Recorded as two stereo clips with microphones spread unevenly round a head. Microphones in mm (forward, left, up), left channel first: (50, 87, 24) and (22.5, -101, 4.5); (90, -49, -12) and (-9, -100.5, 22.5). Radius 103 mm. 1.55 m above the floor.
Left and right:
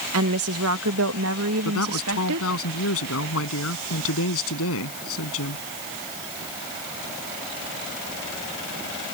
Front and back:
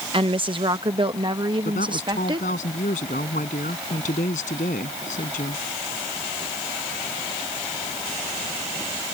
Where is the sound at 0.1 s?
115° right; by 2.5 s 105° right.